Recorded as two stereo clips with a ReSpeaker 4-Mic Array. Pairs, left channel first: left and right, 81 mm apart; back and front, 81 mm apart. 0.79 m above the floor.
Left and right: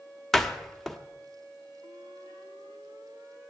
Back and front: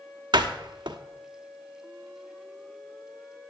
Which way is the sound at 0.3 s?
5° left.